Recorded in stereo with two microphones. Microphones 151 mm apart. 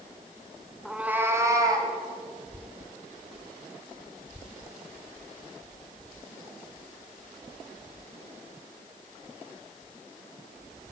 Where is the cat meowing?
Centre (ahead or behind), 1.2 m; by 1.9 s 25° right (ahead or behind), 2.5 m.